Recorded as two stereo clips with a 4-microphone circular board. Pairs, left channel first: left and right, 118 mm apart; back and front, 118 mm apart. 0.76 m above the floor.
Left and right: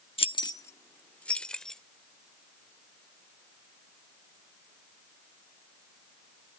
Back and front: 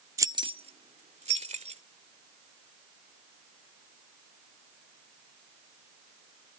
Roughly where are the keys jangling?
Ahead left.